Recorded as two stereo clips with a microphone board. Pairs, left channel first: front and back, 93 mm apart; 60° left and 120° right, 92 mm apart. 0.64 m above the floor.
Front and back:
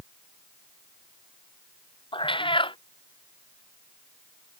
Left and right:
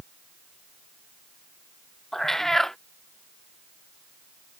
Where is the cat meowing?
25° right.